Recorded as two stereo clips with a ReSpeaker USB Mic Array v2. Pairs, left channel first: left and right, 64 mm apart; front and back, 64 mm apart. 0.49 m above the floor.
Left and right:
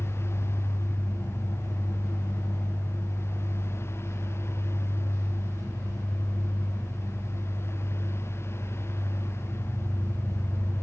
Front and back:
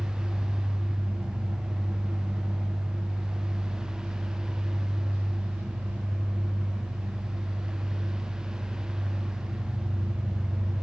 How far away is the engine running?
About 8.5 m.